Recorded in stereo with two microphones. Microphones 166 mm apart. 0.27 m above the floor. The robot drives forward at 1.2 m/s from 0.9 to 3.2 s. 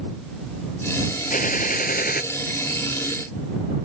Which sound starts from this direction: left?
A gunshot, at 1.3 s.